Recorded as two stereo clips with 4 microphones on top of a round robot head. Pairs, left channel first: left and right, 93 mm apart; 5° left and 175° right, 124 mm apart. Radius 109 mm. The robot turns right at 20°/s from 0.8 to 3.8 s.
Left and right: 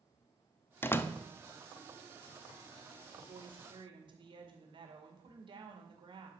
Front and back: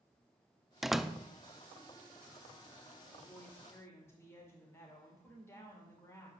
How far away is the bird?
No bird in this recording.